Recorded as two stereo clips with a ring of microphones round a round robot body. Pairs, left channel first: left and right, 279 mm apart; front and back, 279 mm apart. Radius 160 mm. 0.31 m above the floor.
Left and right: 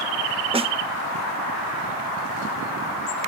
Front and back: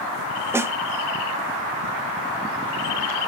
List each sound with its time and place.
0.5 s a snare drum: 115° right, 0.5 m